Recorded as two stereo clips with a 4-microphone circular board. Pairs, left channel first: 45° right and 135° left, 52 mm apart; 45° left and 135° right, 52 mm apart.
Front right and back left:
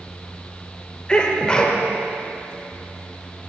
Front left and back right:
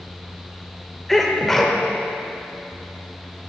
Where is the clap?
I don't hear a clap.